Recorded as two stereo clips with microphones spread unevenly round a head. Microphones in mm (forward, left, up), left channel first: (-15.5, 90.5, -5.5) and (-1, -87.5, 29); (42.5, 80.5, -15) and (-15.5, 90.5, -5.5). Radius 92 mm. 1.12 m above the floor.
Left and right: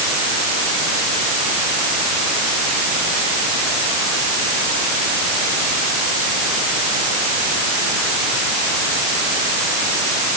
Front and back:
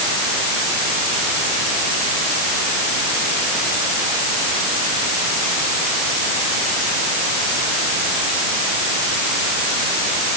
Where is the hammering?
No hammering in this recording.